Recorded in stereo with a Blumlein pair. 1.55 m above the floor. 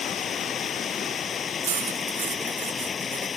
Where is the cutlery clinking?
60° right.